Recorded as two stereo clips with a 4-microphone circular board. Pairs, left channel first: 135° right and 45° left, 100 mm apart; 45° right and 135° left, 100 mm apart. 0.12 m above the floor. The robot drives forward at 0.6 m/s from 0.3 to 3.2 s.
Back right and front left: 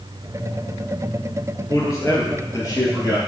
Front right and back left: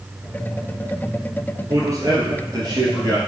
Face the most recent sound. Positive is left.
turn(degrees=180)